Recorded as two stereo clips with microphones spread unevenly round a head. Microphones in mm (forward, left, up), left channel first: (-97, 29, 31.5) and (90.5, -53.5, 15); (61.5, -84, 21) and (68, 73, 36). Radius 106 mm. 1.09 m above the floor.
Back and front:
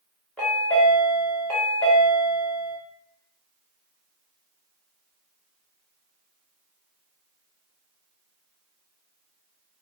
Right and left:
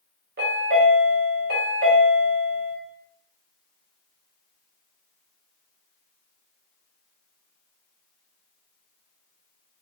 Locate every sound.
0.4 s a chime: 70° left, 0.9 m